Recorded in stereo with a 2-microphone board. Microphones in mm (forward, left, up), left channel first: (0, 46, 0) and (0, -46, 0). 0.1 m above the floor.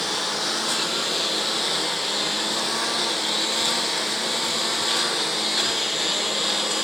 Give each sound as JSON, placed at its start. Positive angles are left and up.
{"t": 0.0, "sound": "a lawn mower", "side_deg": 0}